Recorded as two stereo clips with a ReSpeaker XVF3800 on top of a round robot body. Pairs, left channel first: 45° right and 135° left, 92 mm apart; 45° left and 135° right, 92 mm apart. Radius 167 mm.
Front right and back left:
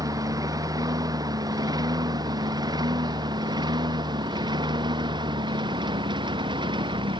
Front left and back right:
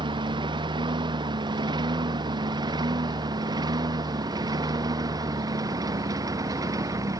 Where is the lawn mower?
170° right; by 7.2 s 170° left.